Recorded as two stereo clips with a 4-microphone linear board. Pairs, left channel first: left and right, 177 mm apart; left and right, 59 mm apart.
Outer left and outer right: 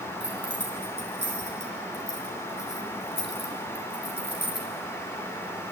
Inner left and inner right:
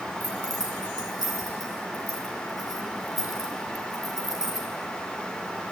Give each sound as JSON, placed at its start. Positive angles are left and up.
{"t": 0.2, "sound": "keys jangling", "side_deg": 80, "distance_m": 5.0}